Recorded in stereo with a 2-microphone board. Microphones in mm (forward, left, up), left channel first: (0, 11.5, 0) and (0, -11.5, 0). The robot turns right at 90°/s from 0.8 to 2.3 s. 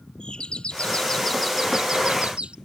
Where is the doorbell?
125° left; by 2.5 s 100° right.